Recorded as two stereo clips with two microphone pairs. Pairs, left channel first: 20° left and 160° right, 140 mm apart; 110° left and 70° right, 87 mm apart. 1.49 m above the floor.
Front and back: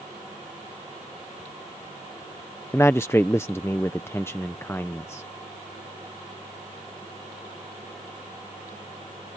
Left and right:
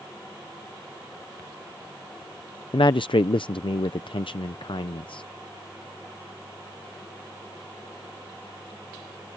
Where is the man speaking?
95° left.